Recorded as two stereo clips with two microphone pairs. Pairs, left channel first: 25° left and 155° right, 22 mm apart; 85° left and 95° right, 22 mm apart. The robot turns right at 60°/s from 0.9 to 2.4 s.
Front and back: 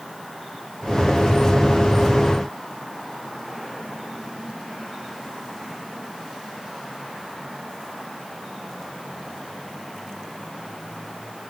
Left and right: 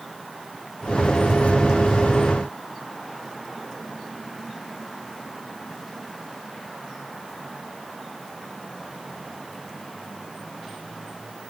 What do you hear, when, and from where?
Only background noise.